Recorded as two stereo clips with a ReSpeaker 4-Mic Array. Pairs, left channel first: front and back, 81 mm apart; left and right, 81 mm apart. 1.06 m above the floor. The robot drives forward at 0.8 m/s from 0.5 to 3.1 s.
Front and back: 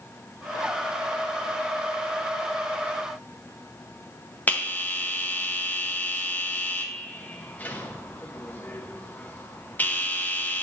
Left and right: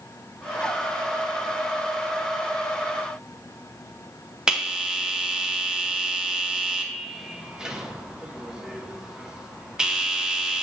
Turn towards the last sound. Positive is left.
turn(degrees=-25)